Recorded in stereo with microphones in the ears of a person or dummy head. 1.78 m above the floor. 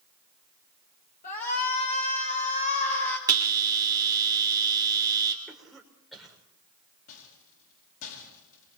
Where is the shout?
50° left (ahead or behind), 7.5 m; by 3.2 s 45° left (ahead or behind), 8.5 m.